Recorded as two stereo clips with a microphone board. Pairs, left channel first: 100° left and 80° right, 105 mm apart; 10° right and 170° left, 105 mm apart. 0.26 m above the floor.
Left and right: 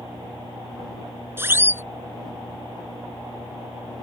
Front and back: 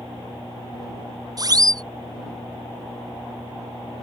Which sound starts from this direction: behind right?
A siren, at 1.4 s.